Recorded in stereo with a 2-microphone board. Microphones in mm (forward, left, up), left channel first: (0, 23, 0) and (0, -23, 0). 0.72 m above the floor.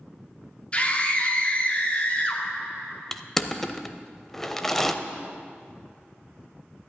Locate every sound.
0.7 s a scream: 25° left (ahead or behind), 1.7 m
3.1 s crushing: 5° left (ahead or behind), 0.6 m